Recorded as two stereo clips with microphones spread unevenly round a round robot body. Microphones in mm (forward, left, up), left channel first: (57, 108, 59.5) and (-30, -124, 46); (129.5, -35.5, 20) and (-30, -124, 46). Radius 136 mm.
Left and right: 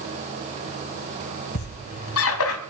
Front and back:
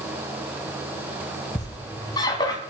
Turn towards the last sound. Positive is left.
turn(degrees=105)